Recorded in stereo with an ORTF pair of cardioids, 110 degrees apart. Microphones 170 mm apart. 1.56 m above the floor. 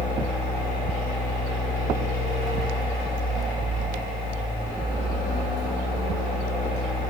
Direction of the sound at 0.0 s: 60° left.